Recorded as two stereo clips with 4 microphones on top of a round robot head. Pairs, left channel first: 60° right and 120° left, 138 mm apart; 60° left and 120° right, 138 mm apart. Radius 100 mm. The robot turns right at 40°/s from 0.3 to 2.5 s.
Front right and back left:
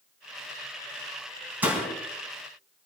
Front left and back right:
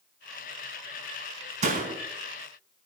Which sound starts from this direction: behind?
A door slam, at 1.6 s.